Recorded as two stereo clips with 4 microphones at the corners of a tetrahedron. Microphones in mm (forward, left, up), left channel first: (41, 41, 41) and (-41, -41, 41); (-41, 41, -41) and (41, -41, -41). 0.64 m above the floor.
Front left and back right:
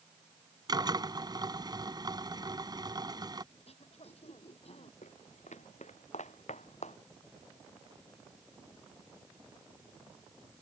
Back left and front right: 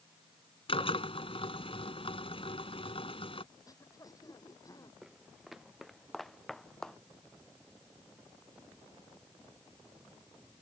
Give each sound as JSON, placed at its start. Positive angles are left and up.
{"t": 0.7, "sound": "a drill", "azimuth_deg": 170}
{"t": 3.5, "sound": "throat clearing", "azimuth_deg": 75}
{"t": 5.0, "sound": "footsteps", "azimuth_deg": 40}